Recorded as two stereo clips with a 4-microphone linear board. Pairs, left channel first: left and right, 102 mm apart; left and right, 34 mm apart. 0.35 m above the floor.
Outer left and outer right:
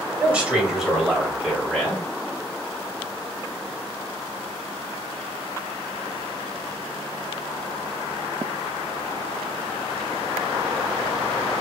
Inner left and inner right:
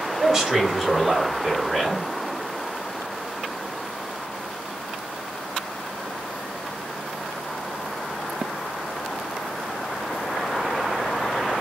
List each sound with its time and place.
0.2 s a man speaking: 15° right (ahead or behind), 2 m; by 2.1 s 10° left (ahead or behind), 2.5 m